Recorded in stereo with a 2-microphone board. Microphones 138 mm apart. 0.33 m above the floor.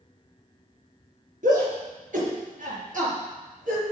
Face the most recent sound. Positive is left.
turn(degrees=-70)  # may be behind; listen again after turning